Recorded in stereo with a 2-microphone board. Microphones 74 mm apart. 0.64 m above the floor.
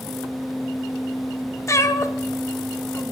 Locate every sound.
1.7 s a cat meowing: 45° left (ahead or behind), 0.7 m